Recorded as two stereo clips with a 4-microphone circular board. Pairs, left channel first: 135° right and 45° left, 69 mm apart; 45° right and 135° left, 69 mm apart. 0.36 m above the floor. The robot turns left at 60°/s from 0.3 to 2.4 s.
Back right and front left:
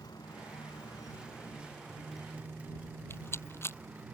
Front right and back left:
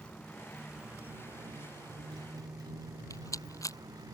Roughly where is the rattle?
Right.